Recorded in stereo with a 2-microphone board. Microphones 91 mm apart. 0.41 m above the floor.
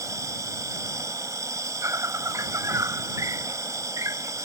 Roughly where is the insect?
Right.